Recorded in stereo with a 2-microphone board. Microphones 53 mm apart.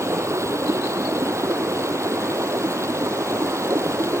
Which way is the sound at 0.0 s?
65° right (ahead or behind).